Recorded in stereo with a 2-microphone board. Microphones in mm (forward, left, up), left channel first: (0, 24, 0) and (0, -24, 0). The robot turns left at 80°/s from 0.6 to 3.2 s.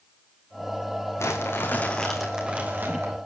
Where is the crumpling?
80° left, 4 m; by 3.2 s 75° right, 4 m.